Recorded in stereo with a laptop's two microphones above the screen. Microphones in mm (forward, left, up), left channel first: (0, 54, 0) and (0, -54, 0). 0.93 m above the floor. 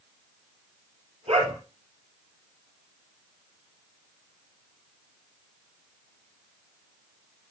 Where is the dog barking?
75° right (ahead or behind), 6 m.